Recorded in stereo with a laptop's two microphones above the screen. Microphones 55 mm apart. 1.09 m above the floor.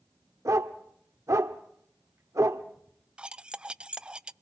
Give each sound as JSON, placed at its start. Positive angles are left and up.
{"t": 0.5, "sound": "a dog barking", "side_deg": -70, "distance_m": 1.3}
{"t": 3.2, "sound": "cutlery clinking", "side_deg": -15, "distance_m": 0.5}